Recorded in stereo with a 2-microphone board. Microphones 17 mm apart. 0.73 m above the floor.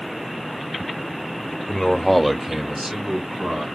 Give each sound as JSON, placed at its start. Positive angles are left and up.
{"t": 1.7, "sound": "a man speaking", "side_deg": 50, "distance_m": 0.8}